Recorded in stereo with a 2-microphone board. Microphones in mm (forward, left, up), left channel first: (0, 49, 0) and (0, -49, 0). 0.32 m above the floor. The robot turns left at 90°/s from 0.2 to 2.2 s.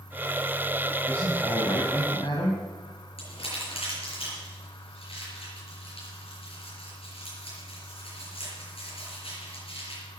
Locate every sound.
1.1 s a man speaking: 170° left, 2.5 m; by 2.6 s 65° left, 2.5 m
3.2 s crumpling: 80° left, 6 m